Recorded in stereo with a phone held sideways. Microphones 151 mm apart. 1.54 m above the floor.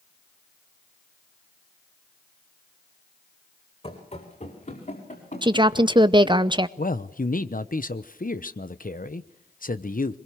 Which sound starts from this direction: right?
A woman speaking, at 5.4 s.